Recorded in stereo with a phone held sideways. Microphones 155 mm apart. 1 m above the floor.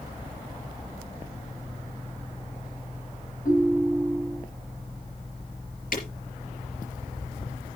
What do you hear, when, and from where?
3.5 s a ringtone: 60° left (ahead or behind), 4.5 m
5.9 s breaking glass: 65° left (ahead or behind), 4.5 m